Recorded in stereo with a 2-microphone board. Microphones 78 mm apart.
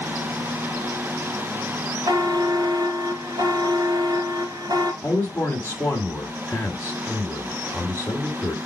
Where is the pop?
No pop in this recording.